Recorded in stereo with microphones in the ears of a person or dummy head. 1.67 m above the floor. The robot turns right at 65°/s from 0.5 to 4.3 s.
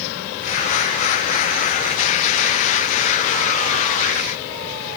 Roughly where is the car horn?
I don't hear a car horn.